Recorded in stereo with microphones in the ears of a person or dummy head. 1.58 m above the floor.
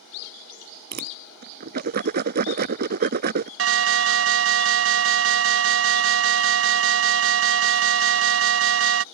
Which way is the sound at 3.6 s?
65° right (ahead or behind).